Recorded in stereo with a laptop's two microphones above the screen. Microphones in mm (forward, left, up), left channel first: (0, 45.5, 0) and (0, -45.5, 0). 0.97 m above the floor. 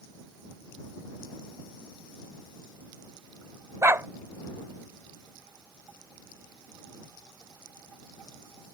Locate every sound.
3.8 s a dog barking: 30° right (ahead or behind)